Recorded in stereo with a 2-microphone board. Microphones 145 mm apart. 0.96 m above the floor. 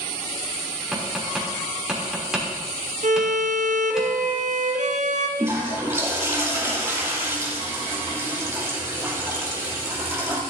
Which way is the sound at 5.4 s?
20° right (ahead or behind).